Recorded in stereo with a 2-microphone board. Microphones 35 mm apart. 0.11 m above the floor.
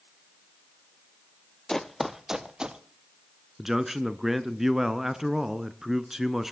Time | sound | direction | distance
1.7 | running footsteps | 15° left (ahead or behind) | 0.8 m
3.6 | a man speaking | 10° right (ahead or behind) | 1.1 m